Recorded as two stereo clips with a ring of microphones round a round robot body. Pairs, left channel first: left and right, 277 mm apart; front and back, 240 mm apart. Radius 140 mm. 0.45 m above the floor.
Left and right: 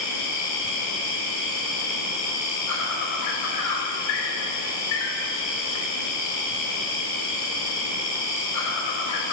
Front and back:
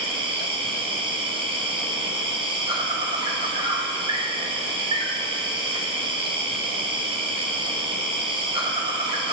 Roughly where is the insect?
Left.